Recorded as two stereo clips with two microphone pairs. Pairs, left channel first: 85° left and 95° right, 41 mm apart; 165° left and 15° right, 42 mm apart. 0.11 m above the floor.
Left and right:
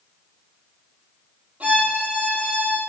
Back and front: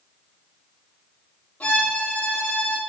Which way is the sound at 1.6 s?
145° right.